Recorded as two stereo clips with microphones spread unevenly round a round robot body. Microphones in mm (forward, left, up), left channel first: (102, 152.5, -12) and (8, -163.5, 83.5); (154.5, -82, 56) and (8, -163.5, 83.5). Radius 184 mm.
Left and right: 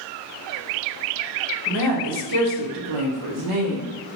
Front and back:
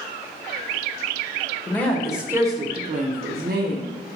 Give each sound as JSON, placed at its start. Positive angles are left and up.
{"t": 1.7, "sound": "a woman speaking", "azimuth_deg": -45, "distance_m": 1.2}